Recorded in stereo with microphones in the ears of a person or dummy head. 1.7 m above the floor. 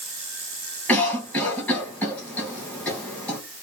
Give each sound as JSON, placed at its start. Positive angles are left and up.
{"t": 0.9, "sound": "a cough", "side_deg": 10, "distance_m": 2.0}